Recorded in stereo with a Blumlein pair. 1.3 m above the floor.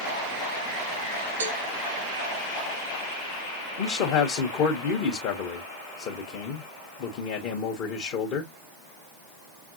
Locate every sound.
1.4 s a cowbell: 70° right, 0.9 m
3.8 s a man speaking: 40° left, 0.9 m